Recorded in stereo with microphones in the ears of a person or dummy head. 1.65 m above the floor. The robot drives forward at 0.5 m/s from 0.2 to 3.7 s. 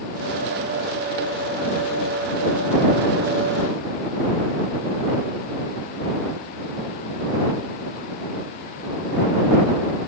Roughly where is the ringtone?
I don't hear a ringtone.